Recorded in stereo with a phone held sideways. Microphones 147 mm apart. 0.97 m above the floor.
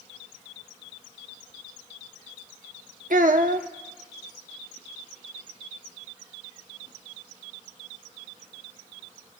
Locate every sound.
3.1 s a child speaking: 75° right (ahead or behind), 0.8 m